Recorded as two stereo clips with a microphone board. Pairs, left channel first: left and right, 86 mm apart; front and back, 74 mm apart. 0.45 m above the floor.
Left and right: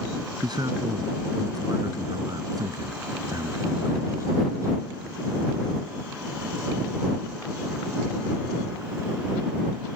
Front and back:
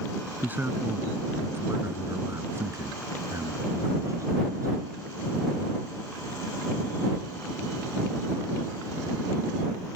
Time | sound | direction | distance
0.4 | a man speaking | 115° right | ?